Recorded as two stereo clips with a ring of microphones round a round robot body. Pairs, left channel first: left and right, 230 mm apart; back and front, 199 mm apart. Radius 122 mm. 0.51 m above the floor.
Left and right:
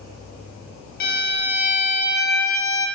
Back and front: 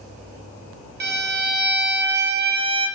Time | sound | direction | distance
1.0 | a violin | 40° left | 3 m